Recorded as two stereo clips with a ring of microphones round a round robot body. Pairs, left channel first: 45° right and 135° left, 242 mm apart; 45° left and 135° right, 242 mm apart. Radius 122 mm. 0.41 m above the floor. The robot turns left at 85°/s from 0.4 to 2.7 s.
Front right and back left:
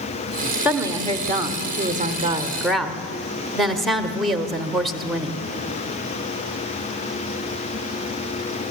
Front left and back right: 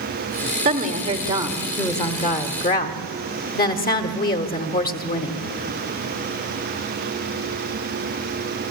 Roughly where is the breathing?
No breathing in this recording.